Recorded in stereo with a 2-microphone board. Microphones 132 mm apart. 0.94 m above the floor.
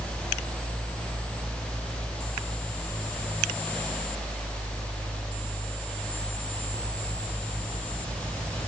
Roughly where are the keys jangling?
I don't hear keys jangling.